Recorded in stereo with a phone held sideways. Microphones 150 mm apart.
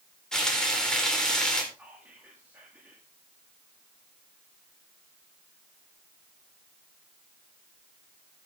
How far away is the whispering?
About 2 m.